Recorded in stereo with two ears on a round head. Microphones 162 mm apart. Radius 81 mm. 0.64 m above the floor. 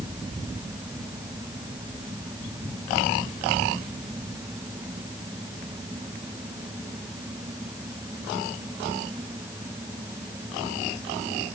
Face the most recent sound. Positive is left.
No sound to turn to.